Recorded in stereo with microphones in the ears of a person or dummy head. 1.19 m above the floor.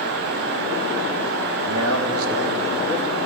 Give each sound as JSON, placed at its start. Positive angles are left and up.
{"t": 1.6, "sound": "a man speaking", "side_deg": -70, "distance_m": 1.8}